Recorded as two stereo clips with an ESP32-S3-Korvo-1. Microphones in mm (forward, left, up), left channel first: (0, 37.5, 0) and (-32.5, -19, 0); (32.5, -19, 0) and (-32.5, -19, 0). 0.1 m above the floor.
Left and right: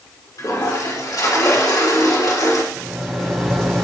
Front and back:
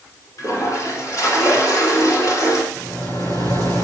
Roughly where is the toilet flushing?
Ahead left.